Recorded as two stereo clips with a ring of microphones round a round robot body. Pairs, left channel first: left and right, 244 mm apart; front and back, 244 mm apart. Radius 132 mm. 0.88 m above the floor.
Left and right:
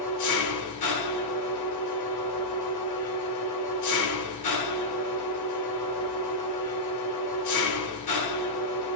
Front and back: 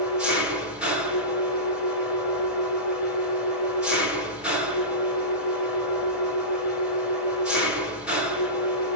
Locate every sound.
0.0 s an engine running: 95° left, 1.5 m